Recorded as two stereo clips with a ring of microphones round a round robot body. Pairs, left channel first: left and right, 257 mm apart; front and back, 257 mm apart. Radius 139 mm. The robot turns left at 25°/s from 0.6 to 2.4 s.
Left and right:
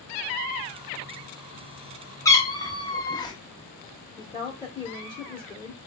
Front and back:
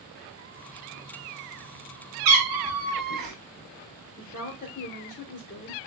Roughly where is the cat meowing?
Behind.